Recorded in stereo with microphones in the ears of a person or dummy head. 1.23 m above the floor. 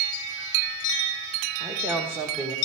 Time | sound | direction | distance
1.6 | a woman speaking | 15° right (ahead or behind) | 1.0 m